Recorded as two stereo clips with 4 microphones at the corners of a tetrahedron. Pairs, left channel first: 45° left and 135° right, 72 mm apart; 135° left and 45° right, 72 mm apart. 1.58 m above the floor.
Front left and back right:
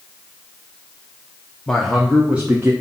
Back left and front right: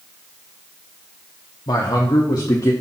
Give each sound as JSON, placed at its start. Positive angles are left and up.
{"t": 1.7, "sound": "a man speaking", "azimuth_deg": 125, "distance_m": 0.9}